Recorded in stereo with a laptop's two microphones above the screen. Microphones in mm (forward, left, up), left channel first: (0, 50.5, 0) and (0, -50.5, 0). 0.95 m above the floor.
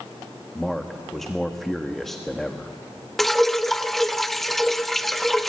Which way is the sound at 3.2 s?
Centre (ahead or behind).